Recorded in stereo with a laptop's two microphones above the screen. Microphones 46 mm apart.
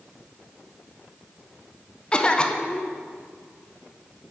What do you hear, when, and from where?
2.1 s a cough: 20° left (ahead or behind), 0.6 m